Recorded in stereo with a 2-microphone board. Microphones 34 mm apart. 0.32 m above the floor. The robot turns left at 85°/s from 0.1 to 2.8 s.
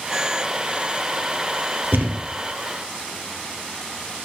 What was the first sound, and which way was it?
A thud, 80° right.